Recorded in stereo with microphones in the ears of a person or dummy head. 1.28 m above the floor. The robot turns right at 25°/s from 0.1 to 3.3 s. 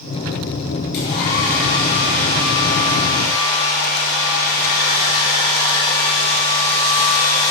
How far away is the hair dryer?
About 5.5 m.